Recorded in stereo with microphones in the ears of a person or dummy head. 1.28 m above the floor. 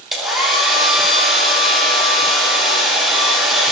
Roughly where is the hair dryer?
Centre.